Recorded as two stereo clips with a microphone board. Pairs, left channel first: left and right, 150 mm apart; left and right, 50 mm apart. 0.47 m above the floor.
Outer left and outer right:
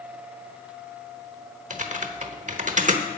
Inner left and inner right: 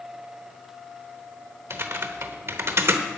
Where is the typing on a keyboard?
55° right (ahead or behind), 1.0 m.